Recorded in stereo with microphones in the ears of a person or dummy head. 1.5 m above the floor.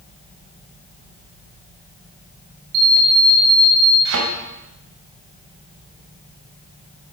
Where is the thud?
70° right (ahead or behind), 3 m.